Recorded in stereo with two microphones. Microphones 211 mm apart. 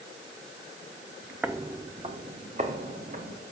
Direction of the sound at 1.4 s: 5° right (ahead or behind).